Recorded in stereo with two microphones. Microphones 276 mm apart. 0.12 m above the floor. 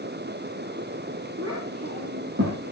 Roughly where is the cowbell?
No cowbell in this recording.